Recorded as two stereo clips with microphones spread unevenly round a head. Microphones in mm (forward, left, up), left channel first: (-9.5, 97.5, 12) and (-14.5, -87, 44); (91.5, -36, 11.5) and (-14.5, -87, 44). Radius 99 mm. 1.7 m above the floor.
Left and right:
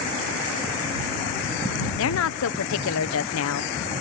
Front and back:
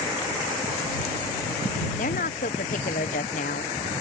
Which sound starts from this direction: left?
A woman speaking, at 2.0 s.